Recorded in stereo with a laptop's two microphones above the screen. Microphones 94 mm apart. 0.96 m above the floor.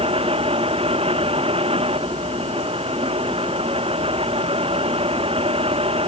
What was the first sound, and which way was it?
A fan, 80° right.